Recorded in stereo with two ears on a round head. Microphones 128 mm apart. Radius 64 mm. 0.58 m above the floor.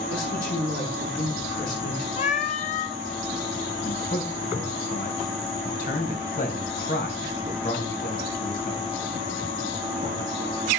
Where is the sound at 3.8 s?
65° left (ahead or behind), 3.5 m.